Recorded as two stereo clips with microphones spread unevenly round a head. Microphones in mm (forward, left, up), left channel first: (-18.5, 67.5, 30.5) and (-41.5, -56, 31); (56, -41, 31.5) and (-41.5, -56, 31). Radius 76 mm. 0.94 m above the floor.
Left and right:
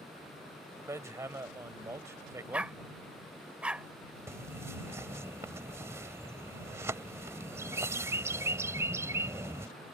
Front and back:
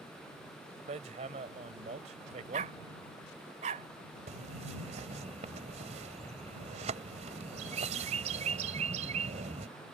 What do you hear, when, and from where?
0.9 s hammering: 170° right
2.5 s a dog barking: straight behind
4.3 s a bird: 170° right